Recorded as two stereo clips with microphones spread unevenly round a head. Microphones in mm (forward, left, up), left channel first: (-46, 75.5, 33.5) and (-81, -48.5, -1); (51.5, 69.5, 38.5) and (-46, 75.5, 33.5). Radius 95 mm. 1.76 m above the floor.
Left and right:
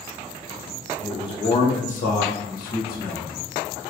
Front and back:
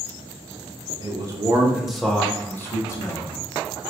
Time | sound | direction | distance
1.0 | a man speaking | 130° left | 0.6 m